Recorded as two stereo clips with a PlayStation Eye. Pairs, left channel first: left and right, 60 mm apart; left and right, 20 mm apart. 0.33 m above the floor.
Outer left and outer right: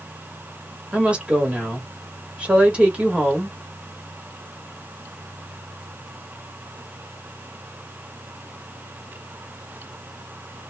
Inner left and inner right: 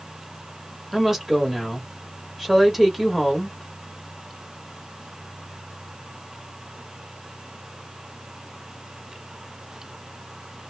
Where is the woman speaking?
20° right (ahead or behind), 1.4 m.